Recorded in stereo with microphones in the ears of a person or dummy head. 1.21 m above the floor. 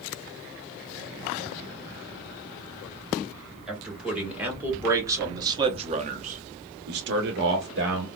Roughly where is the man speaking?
Centre.